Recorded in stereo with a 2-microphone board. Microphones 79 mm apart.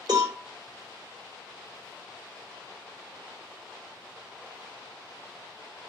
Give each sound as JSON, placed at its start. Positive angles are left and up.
{"t": 0.1, "sound": "a cowbell", "side_deg": -55, "distance_m": 2.0}